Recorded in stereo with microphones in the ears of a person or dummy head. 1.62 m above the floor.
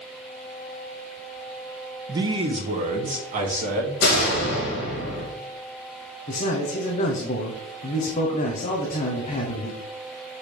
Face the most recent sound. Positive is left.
turn(degrees=40)  # may be behind; listen again after turning